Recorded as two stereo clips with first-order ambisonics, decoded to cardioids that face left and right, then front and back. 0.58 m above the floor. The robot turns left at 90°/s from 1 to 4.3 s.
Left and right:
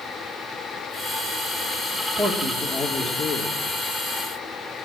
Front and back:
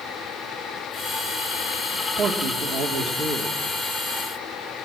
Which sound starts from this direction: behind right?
A man speaking, at 2.2 s.